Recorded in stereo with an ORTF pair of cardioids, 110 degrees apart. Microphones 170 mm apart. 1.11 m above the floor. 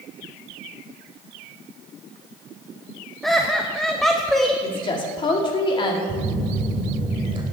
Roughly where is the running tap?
I don't hear a running tap.